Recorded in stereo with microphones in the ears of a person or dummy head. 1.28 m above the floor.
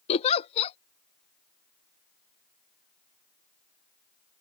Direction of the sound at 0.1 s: 35° left (ahead or behind).